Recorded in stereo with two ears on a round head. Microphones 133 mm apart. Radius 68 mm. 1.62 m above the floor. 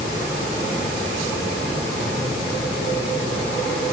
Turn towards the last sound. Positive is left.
No sound to turn to.